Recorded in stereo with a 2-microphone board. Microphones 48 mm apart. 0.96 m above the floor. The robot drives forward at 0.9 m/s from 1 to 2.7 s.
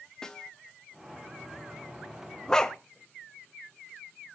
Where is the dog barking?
15° left (ahead or behind), 0.8 m.